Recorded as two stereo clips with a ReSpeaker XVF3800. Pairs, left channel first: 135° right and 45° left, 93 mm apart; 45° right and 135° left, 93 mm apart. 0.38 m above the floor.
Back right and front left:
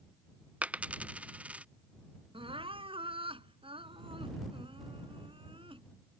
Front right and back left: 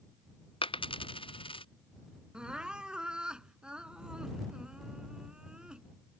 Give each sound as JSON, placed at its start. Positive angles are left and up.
{"t": 0.6, "sound": "a dropped coin", "azimuth_deg": -30}
{"t": 2.3, "sound": "crying", "azimuth_deg": 55}